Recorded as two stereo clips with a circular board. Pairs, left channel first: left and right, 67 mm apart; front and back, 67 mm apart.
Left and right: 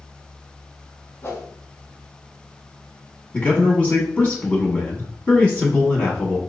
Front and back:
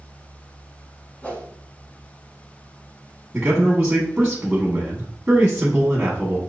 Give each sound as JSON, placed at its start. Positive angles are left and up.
{"t": 1.2, "sound": "a whoosh", "azimuth_deg": 60, "distance_m": 0.9}
{"t": 3.3, "sound": "a man speaking", "azimuth_deg": 130, "distance_m": 1.1}